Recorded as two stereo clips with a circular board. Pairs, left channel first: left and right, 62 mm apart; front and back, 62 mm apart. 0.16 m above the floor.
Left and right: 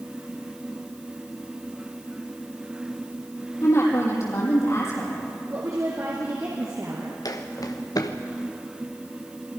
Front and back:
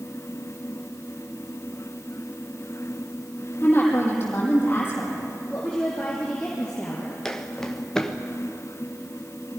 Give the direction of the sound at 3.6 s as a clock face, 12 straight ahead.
10 o'clock.